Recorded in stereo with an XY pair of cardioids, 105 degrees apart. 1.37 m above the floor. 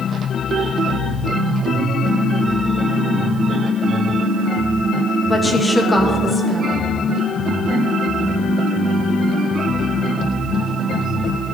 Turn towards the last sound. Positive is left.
turn(degrees=10)